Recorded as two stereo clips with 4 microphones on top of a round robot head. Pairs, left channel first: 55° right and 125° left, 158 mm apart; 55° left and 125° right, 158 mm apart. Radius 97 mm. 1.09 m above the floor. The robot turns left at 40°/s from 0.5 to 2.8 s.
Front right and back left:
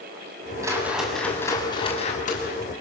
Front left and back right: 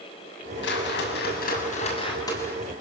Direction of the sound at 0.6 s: 55° left.